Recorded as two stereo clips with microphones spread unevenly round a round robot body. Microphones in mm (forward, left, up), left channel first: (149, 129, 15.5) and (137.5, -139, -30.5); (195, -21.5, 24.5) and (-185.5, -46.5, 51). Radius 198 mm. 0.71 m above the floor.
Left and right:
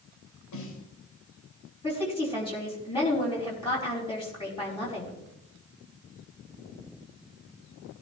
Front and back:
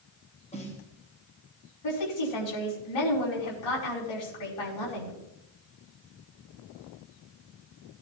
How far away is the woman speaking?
About 5 m.